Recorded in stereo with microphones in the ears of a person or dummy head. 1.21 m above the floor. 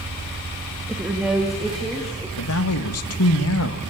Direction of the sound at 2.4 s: 75° left (ahead or behind).